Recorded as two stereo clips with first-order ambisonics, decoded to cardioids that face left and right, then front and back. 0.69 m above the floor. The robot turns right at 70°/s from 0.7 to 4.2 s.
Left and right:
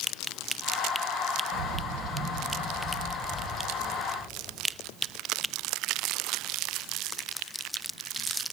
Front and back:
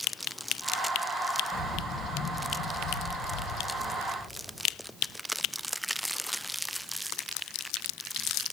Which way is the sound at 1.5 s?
100° right.